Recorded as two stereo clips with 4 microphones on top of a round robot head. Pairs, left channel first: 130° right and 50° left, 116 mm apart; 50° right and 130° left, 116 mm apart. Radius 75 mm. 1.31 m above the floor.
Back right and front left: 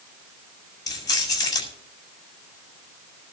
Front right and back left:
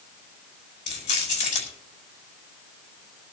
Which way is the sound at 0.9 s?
75° right.